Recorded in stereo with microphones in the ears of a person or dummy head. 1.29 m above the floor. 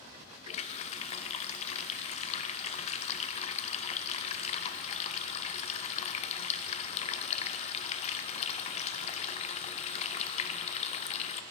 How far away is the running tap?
About 0.7 m.